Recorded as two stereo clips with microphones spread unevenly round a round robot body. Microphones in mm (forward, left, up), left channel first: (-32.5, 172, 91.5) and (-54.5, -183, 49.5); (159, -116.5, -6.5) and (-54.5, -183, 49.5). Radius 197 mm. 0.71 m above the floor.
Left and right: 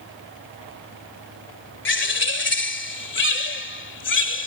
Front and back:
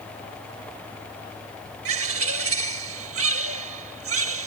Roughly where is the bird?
Behind left.